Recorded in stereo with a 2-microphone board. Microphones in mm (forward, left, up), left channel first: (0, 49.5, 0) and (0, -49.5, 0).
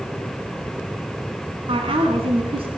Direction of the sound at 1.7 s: 70° right (ahead or behind).